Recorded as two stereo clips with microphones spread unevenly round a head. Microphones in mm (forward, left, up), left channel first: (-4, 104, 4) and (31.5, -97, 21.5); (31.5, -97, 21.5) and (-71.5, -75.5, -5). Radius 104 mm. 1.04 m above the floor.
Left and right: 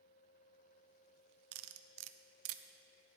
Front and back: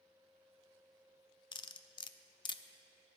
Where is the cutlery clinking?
60° right, 0.5 m.